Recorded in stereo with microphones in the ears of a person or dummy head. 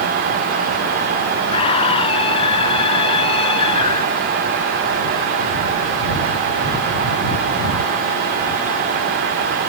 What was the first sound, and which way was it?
A scream, 30° left (ahead or behind).